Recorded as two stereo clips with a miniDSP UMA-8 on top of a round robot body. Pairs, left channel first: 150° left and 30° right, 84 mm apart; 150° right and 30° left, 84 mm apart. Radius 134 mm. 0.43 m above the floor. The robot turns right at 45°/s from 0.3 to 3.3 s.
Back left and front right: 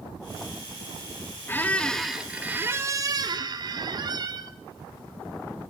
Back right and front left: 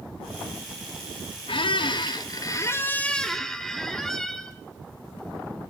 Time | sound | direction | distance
1.5 | a squeak | 145° right | 0.6 m